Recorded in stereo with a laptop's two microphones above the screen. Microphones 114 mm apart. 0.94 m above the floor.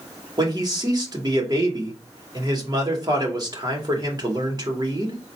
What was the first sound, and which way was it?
A man speaking, 35° right (ahead or behind).